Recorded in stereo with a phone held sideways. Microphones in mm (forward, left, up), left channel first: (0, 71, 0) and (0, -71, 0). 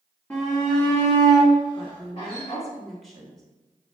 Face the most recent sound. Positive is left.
turn(degrees=0)  # may be behind; listen again after turning